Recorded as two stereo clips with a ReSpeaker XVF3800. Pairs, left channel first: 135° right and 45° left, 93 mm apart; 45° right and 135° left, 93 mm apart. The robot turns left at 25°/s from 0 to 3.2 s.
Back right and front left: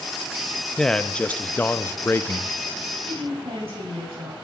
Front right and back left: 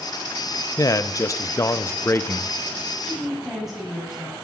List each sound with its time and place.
0.8 s a man speaking: 55° right, 0.6 m; by 2.9 s 110° right, 0.6 m
3.0 s a woman speaking: 55° left, 6.5 m; by 4.3 s 50° left, 6.5 m